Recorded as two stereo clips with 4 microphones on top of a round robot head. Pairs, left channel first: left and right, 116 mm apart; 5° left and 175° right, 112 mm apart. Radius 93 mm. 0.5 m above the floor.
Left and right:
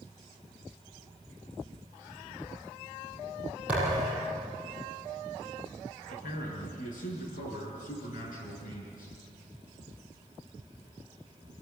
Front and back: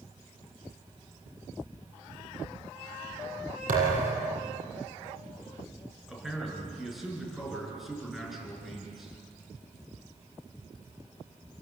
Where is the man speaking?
100° left, 7 m.